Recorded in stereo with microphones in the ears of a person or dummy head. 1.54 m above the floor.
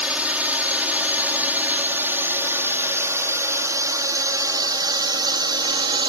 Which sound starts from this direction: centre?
A drone, at 0.0 s.